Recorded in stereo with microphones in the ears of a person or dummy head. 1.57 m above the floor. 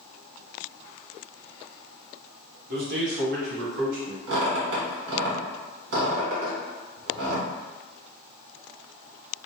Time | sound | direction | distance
2.7 | a man speaking | 50° right (ahead or behind) | 0.6 m
4.3 | a squeak | 70° right (ahead or behind) | 1.6 m